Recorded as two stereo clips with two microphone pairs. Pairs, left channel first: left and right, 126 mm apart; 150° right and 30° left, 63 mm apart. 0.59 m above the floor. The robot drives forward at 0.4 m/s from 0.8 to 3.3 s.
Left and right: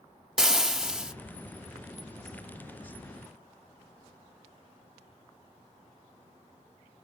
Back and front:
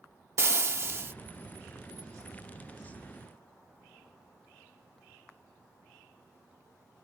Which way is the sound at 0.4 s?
5° right.